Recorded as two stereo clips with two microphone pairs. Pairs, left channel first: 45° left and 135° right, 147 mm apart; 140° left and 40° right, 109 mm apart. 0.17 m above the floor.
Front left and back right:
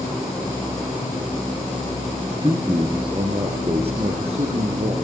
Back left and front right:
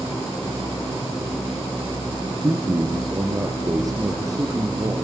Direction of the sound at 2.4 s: 80° right.